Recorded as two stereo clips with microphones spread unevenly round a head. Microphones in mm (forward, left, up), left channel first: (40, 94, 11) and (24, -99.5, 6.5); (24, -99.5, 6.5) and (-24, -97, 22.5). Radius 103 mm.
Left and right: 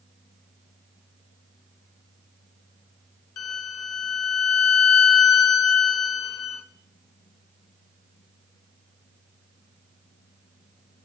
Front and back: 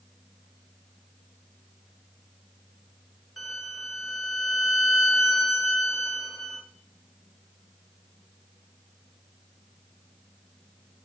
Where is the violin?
90° left, 0.8 m.